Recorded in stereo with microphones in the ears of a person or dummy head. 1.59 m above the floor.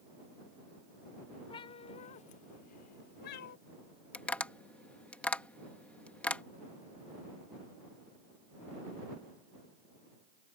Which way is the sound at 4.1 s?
5° left (ahead or behind).